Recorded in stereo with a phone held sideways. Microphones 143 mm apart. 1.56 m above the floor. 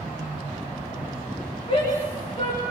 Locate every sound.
1.7 s a shout: 40° left (ahead or behind), 5 m